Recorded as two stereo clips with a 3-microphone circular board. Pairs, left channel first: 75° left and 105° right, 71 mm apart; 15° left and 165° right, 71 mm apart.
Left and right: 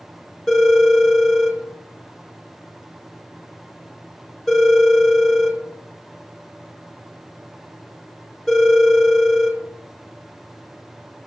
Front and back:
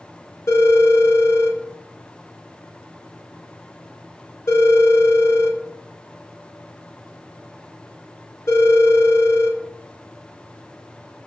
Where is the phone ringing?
10° right, 1.7 m.